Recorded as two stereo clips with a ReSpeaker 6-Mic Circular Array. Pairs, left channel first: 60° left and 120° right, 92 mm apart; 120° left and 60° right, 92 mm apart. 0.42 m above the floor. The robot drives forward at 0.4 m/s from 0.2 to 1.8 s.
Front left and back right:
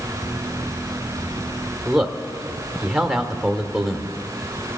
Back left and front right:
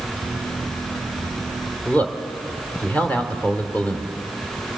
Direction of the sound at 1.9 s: 160° left.